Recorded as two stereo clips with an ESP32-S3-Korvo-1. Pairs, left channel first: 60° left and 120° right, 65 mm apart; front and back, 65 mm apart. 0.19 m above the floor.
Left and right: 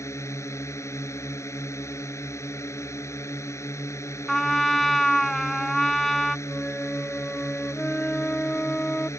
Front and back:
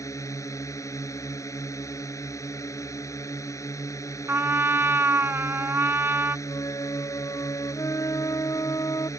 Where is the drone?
25° left.